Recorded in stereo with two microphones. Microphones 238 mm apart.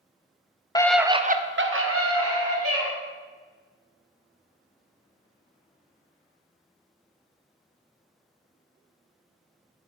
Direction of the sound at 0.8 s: 15° left (ahead or behind).